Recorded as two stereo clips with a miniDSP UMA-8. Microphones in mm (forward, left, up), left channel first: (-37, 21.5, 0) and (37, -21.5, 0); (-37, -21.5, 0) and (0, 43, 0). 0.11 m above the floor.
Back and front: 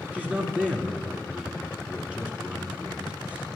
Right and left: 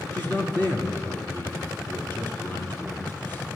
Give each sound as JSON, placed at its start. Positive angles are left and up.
{"t": 0.1, "sound": "a man speaking", "azimuth_deg": -90, "distance_m": 1.7}